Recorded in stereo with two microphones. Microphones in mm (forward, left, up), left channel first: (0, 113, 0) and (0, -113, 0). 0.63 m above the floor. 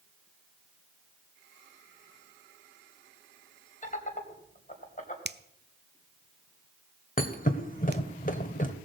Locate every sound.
3.8 s laughter: 35° left (ahead or behind), 3 m
5.2 s a finger snap: 50° right (ahead or behind), 0.5 m
7.2 s a thud: 35° left (ahead or behind), 1.4 m